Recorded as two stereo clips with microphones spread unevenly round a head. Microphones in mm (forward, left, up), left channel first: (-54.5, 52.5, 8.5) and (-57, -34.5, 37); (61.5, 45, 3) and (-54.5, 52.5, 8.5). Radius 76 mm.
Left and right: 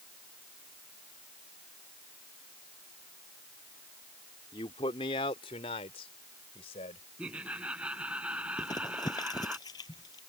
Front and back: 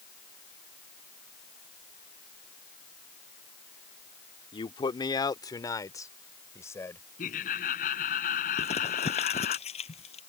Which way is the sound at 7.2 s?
10° right.